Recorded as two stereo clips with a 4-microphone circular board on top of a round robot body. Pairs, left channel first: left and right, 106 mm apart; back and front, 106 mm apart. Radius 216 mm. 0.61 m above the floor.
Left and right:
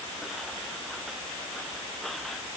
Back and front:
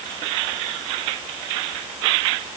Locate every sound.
Only background noise.